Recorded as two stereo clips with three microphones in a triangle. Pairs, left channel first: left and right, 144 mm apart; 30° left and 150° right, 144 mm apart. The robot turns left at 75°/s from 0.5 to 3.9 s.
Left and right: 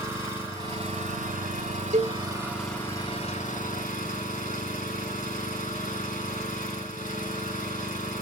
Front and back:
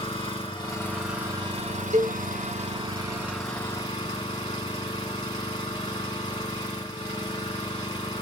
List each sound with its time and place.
0.0 s an engine running: 20° right, 2.5 m; by 8.2 s 85° left, 2.5 m
1.9 s a cowbell: 110° right, 1.1 m; by 2.2 s 130° right, 1.1 m